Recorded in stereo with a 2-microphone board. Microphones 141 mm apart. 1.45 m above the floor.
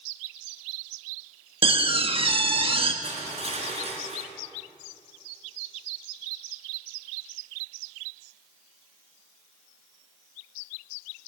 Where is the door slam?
40° right (ahead or behind), 1.3 m.